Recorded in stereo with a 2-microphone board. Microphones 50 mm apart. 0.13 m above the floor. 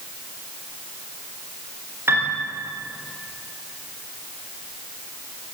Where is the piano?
50° right (ahead or behind), 8 m.